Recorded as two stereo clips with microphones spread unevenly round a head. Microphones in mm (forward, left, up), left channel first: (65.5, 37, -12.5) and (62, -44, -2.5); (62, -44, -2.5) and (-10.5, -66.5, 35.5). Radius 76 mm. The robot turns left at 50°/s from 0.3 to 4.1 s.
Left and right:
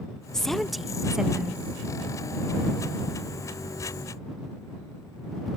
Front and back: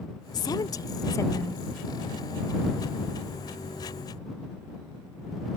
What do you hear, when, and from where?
0.3 s a woman speaking: 5° right; by 1.6 s 70° right